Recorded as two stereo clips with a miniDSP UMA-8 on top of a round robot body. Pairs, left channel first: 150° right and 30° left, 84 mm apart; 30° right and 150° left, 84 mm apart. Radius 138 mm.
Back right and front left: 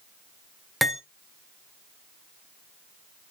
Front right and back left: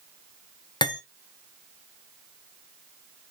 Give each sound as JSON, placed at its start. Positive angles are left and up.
{"t": 0.8, "sound": "cutlery clinking", "azimuth_deg": -60, "distance_m": 0.8}